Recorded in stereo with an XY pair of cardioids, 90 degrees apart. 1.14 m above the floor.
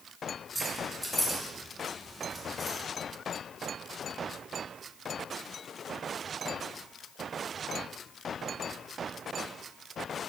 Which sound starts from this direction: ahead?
Keys jangling, at 0.6 s.